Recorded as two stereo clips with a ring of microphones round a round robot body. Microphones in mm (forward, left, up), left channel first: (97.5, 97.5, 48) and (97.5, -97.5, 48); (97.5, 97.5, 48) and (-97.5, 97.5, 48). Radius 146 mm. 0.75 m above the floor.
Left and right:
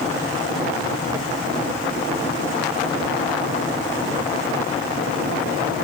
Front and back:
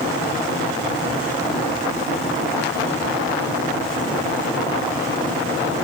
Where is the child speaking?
I don't hear a child speaking.